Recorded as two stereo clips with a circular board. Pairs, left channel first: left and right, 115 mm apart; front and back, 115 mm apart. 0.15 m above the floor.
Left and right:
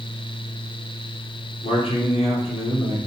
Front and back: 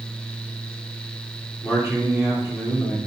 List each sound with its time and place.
1.6 s a man speaking: 100° left, 2.5 m